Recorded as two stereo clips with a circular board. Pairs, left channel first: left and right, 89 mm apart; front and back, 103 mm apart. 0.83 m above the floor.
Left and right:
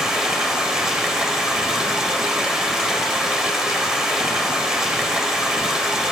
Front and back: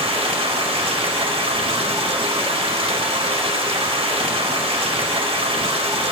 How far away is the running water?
About 2 m.